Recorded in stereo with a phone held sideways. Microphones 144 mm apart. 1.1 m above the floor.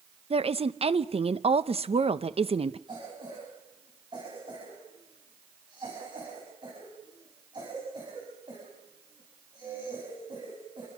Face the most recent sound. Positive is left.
turn(degrees=-30)  # may be behind; listen again after turning